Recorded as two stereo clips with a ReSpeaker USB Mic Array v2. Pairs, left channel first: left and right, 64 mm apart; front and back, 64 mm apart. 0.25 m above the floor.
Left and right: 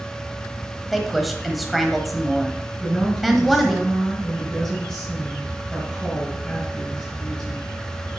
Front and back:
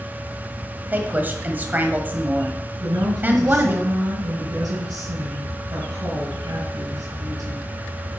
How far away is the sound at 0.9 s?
About 1.1 m.